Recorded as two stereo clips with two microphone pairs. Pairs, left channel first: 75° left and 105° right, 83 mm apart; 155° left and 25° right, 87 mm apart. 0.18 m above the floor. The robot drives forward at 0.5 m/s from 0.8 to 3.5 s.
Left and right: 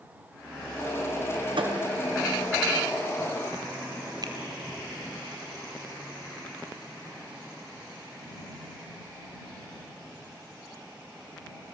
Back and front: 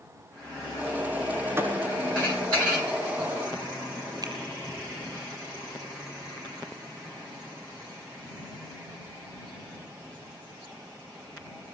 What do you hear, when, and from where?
1.6 s a thud: 90° right, 7.5 m
4.2 s a finger snap: 70° right, 4 m